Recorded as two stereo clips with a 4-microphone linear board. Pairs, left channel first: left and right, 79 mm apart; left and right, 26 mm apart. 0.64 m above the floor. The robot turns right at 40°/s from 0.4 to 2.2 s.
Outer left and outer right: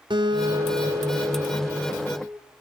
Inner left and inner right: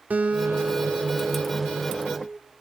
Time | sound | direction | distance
0.1 | a guitar | 80° right | 3 m